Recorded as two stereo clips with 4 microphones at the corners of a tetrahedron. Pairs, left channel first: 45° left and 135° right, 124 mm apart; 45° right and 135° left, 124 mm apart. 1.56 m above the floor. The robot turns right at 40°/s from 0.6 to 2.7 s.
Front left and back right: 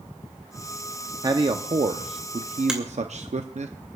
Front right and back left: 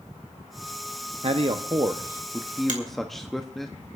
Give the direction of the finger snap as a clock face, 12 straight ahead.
7 o'clock.